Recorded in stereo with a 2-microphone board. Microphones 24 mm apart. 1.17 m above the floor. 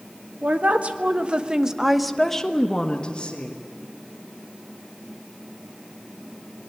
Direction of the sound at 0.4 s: 70° right (ahead or behind).